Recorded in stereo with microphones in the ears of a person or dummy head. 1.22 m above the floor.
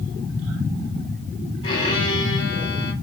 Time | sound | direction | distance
1.6 | a violin | 25° left (ahead or behind) | 1.5 m